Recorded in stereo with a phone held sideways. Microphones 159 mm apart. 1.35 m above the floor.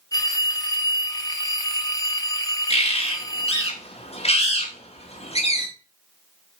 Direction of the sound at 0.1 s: 25° left (ahead or behind).